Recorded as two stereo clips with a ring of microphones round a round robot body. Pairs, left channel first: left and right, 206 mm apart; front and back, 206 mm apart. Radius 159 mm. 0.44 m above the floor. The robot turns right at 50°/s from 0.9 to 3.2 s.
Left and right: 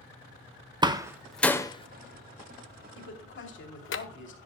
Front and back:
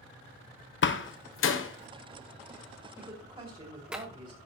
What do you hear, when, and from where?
0.8 s a door slam: 20° right, 1.2 m; by 4.0 s 95° left, 1.2 m
3.0 s a woman speaking: 100° left, 2.5 m; by 4.4 s 110° left, 2.5 m